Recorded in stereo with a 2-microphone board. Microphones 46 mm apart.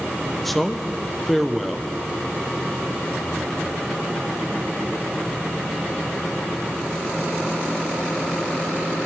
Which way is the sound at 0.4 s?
Centre (ahead or behind).